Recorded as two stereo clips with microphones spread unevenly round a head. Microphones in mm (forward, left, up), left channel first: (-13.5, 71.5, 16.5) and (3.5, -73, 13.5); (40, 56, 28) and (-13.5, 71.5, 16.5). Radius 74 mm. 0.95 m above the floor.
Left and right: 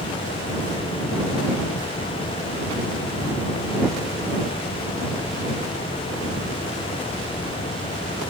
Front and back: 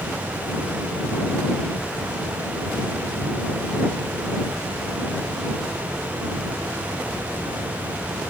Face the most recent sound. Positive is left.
No sound to turn to.